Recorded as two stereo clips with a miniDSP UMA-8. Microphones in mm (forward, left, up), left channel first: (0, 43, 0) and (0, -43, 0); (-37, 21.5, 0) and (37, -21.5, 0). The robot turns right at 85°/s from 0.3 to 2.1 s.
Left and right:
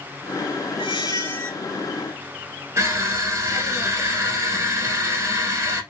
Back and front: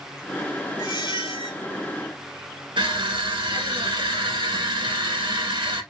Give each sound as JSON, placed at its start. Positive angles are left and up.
{"t": 0.8, "sound": "a squeak", "azimuth_deg": 105, "distance_m": 1.5}
{"t": 2.8, "sound": "crushing", "azimuth_deg": -40, "distance_m": 1.3}